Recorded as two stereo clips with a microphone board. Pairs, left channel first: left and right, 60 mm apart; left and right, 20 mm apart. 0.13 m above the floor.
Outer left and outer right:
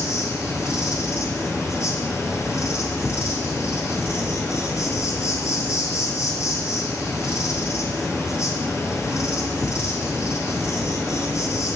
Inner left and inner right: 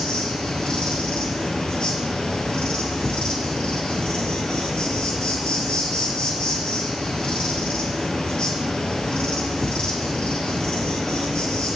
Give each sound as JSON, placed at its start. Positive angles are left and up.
{"t": 0.0, "sound": "an insect", "side_deg": 60, "distance_m": 1.5}